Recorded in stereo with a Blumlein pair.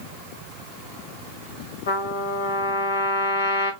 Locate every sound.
1.9 s a trumpet: 60° left, 1.5 m